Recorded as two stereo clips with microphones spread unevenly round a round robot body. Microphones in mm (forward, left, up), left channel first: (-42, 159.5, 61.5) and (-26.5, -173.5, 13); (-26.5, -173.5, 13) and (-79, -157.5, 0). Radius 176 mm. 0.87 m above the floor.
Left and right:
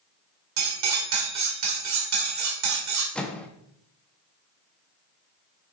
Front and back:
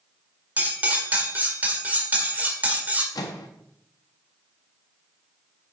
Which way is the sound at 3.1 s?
5° left.